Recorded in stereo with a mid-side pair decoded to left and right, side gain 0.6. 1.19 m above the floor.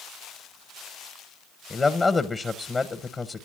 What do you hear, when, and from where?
1.7 s a man speaking: 20° left, 0.8 m